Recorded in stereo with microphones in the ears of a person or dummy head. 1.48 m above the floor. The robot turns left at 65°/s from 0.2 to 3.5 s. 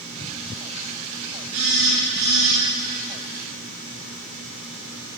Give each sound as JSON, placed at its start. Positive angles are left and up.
{"t": 1.5, "sound": "a phone buzzing", "azimuth_deg": -110, "distance_m": 1.4}